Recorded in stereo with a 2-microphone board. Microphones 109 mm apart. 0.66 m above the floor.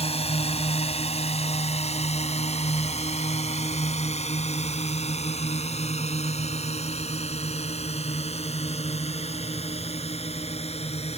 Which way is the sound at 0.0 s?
65° left (ahead or behind).